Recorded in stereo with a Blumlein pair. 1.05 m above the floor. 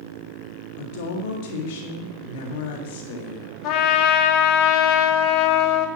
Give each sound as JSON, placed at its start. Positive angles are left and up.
{"t": 0.8, "sound": "a woman speaking", "azimuth_deg": 50, "distance_m": 1.8}
{"t": 3.6, "sound": "a trumpet", "azimuth_deg": 40, "distance_m": 1.7}